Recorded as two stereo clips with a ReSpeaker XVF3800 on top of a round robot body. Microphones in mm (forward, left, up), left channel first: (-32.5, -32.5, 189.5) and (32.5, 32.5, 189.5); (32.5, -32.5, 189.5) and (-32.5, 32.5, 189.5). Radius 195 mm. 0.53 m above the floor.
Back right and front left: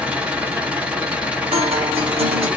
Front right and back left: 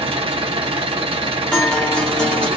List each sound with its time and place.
0.0 s an engine running: 120° left, 1.3 m
1.5 s a guitar: 35° left, 0.6 m